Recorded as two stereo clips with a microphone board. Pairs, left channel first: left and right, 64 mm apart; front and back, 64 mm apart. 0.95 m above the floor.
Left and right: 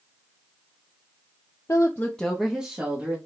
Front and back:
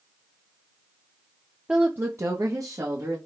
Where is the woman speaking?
110° left, 0.6 m; by 3.2 s 155° right, 1.4 m.